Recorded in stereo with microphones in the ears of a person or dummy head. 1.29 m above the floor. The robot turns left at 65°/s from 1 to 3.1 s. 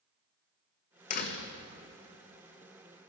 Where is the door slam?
45° left (ahead or behind), 1.0 m; by 1.5 s 70° left (ahead or behind), 1.0 m.